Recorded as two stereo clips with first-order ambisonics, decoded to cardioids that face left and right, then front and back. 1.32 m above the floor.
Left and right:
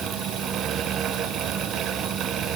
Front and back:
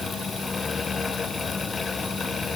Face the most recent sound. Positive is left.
No sound to turn to.